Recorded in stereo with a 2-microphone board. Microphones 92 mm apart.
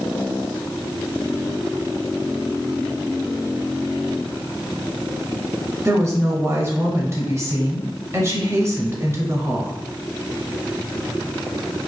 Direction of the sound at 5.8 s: 30° right (ahead or behind).